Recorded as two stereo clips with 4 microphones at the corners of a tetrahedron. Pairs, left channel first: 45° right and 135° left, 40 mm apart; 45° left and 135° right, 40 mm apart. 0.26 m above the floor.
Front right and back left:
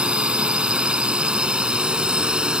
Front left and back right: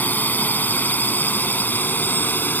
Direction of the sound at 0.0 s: 75° left.